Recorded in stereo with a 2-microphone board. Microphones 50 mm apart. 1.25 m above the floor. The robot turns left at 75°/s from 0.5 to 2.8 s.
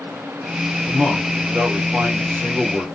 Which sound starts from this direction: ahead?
A man speaking, at 0.9 s.